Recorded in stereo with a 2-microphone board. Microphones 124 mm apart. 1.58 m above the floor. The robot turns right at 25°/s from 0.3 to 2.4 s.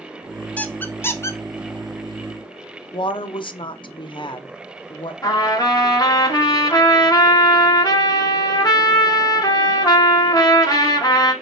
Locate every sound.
0.6 s a squeak: 10° left (ahead or behind), 0.5 m; by 1.4 s 25° left (ahead or behind), 0.5 m
2.9 s a woman speaking: 45° left (ahead or behind), 0.5 m
5.2 s a trumpet: 30° left (ahead or behind), 1.2 m